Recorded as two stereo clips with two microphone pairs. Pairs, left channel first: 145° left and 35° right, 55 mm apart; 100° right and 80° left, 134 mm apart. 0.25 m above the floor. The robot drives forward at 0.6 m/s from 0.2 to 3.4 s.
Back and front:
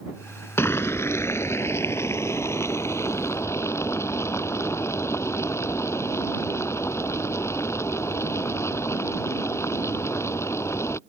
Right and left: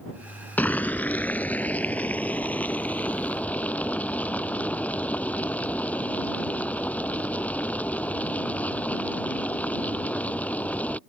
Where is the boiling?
175° right; by 11.0 s straight behind.